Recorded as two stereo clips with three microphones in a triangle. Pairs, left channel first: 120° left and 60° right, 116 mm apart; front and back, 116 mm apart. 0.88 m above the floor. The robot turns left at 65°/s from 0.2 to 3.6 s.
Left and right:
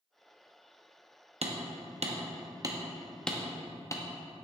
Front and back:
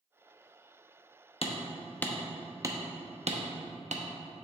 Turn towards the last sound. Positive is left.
turn(degrees=180)